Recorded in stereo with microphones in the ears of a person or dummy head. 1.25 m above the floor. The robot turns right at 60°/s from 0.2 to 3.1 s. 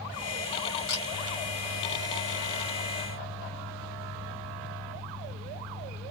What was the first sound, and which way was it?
A camera shutter, 55° left (ahead or behind).